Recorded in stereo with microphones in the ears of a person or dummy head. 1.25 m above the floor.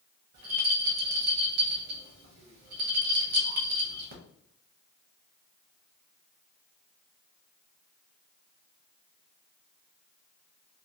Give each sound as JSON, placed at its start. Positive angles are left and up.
{"t": 0.3, "sound": "a rattle", "side_deg": -45, "distance_m": 0.6}